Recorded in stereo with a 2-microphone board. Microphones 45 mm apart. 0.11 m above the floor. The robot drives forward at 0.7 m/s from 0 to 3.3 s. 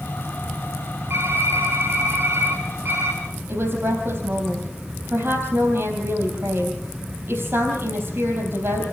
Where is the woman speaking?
55° right (ahead or behind), 3.5 m.